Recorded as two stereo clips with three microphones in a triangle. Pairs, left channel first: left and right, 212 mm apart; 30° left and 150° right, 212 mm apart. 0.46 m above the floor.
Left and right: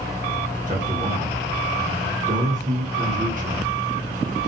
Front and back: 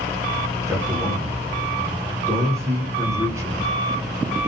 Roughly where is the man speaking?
Right.